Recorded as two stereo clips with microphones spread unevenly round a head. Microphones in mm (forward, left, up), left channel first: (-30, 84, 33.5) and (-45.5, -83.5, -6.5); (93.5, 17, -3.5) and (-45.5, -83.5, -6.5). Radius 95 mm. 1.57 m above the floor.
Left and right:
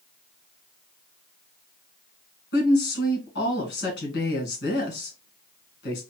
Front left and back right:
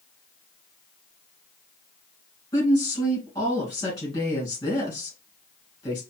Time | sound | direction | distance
2.5 | a woman speaking | 110° left | 2.5 m